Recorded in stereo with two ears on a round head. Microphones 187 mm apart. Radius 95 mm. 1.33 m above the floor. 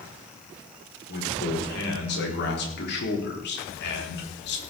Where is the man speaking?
60° left (ahead or behind), 4.5 m.